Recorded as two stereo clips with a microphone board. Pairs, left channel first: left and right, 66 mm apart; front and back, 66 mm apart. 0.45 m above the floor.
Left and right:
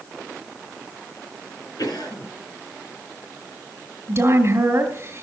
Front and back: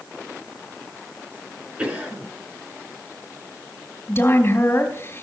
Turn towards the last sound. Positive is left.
turn(degrees=-45)